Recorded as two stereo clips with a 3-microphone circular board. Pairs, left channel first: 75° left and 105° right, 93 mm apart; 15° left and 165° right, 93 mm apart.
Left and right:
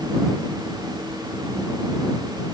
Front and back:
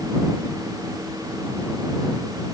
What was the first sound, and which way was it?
Only background noise.